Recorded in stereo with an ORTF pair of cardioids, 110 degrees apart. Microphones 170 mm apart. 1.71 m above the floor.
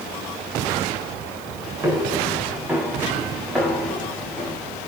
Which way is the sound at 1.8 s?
15° right.